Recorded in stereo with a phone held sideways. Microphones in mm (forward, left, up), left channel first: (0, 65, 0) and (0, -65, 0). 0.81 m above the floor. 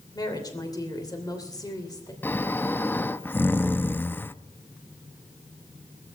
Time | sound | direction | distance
0.1 | a woman speaking | 30° left (ahead or behind) | 3 m
2.2 | snoring | 15° left (ahead or behind) | 0.6 m